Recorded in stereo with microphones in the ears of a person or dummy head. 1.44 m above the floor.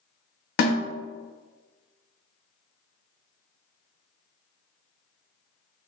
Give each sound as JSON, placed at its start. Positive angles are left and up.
{"t": 0.6, "sound": "a snare drum", "side_deg": 65, "distance_m": 0.8}